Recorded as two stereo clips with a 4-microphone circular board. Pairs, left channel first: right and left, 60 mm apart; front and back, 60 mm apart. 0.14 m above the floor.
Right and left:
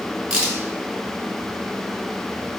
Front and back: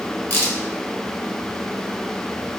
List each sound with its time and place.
0.3 s a crack: 20° left, 1.3 m